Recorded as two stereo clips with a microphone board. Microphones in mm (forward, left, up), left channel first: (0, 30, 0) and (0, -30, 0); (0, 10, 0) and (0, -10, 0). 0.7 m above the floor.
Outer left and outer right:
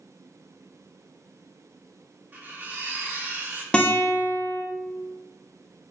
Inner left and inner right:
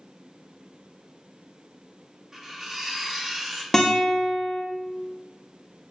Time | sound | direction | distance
2.3 | cutlery clinking | 30° right (ahead or behind) | 0.7 m
3.7 | a guitar | 15° left (ahead or behind) | 0.5 m